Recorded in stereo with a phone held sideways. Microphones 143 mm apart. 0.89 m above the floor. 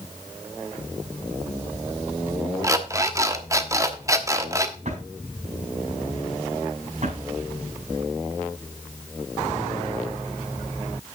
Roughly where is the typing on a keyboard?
No typing on a keyboard in this recording.